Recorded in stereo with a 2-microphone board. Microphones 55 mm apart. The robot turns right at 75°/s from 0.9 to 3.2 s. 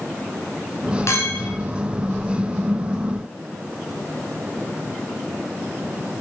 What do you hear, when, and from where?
1.1 s a clink: 120° left, 1.9 m; by 1.5 s 150° left, 1.9 m